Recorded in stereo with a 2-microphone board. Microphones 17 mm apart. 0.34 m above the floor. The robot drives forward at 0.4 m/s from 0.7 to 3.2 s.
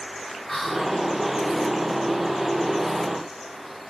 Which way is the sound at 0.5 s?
25° left (ahead or behind).